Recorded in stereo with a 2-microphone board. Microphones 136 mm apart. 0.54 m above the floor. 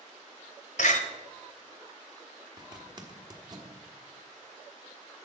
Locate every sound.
0.8 s a door slam: 70° left (ahead or behind), 1.2 m
2.6 s a zipper: 30° right (ahead or behind), 1.4 m